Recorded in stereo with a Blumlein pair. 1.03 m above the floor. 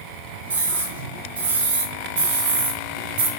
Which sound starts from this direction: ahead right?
A scream, at 0.5 s.